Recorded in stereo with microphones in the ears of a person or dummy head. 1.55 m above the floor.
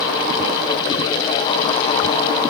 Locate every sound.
Only background noise.